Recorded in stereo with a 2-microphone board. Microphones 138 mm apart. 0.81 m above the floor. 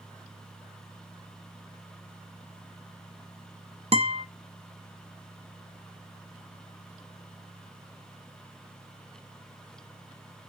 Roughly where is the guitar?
Right.